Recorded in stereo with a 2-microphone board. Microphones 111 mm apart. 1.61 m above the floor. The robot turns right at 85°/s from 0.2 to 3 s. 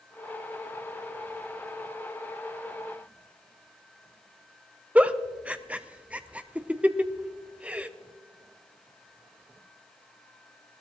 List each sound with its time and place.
5.0 s a giggle: 10° right (ahead or behind), 0.6 m